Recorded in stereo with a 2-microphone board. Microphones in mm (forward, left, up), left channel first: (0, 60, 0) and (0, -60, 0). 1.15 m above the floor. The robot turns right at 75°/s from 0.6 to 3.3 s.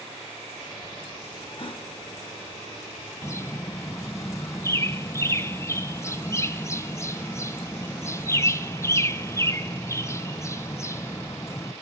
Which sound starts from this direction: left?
A gasp, at 1.6 s.